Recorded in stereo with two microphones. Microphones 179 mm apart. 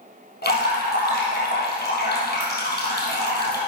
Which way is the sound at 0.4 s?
60° left (ahead or behind).